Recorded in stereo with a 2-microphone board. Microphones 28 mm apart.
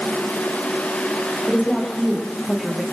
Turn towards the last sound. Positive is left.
turn(degrees=10)  # may be behind; listen again after turning